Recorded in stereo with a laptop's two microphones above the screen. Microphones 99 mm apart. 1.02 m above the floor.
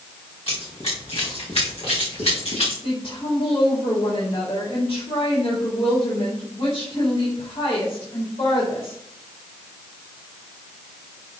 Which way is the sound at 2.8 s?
70° left (ahead or behind).